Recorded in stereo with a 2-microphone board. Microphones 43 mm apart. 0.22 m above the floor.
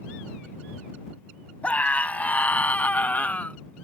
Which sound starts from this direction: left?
A scream, at 1.6 s.